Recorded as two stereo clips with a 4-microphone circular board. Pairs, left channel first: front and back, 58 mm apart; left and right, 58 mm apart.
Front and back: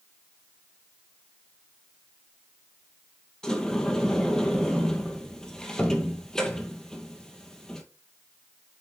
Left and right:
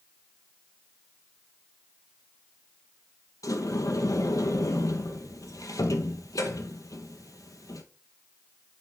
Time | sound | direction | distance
3.4 | a sliding door | 80° left | 1.3 m